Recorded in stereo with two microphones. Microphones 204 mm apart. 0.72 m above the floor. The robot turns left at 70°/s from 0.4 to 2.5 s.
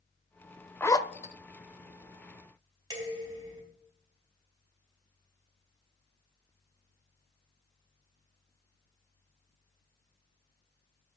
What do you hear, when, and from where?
0.8 s a zipper: 10° left (ahead or behind), 0.6 m; by 1.3 s 40° left (ahead or behind), 0.6 m
2.9 s dishes clattering: 20° right (ahead or behind), 3.5 m